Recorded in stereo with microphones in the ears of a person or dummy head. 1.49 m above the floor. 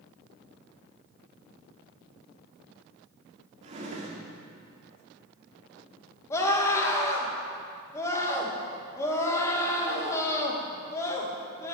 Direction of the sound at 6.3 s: 15° left (ahead or behind).